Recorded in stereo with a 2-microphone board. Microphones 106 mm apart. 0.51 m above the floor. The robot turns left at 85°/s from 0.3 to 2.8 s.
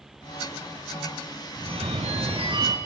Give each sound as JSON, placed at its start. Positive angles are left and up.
{"t": 1.6, "sound": "a phone ringing", "azimuth_deg": -50, "distance_m": 3.5}